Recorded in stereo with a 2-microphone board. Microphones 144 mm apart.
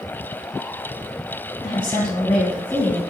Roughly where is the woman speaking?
Left.